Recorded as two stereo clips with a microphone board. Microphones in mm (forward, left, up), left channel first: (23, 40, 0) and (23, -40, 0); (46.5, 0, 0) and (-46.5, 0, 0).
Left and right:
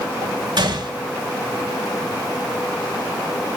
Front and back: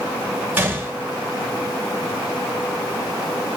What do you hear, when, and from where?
0.6 s a gunshot: 110° right, 1.7 m